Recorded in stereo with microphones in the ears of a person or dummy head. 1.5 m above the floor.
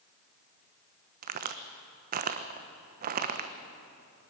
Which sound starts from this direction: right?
A crack, at 1.2 s.